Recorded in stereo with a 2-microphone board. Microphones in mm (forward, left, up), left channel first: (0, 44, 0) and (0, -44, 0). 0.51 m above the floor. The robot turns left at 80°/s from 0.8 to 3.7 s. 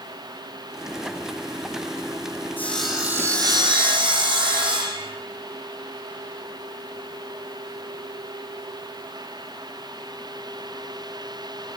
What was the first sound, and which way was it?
Sawing, 20° left.